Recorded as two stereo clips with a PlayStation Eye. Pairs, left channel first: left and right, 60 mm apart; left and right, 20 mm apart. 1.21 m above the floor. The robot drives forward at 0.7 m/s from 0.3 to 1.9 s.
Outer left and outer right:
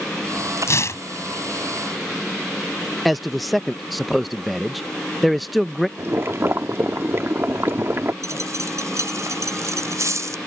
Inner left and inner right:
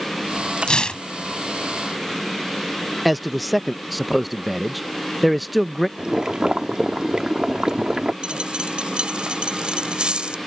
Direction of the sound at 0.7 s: 50° left (ahead or behind).